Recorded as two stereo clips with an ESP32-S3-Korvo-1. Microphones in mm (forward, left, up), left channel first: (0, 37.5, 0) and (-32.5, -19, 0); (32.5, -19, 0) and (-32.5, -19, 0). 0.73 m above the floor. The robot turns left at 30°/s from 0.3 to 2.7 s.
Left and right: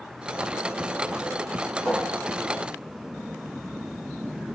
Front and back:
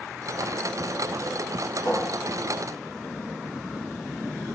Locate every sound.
1.9 s a cupboard door: straight ahead, 4 m; by 4.5 s 25° right, 4 m